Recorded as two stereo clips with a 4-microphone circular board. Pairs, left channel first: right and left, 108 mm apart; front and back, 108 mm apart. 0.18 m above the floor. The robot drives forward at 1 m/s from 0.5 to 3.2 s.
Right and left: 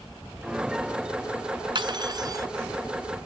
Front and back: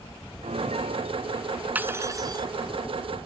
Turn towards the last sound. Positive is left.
turn(degrees=155)